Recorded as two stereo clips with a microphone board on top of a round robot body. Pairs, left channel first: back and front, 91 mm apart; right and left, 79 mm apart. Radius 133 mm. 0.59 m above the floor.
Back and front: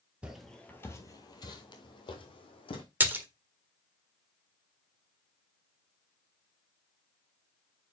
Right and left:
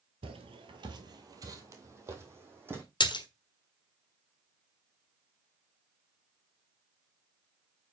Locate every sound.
0.2 s footsteps: 80° left, 1.0 m; by 2.8 s 155° left, 2.5 m
3.0 s a splash: 70° right, 1.5 m